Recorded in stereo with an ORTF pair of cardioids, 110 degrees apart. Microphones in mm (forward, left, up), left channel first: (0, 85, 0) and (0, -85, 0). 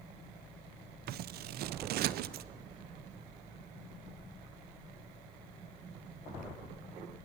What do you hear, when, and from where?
1.1 s scissors: 65° right, 0.6 m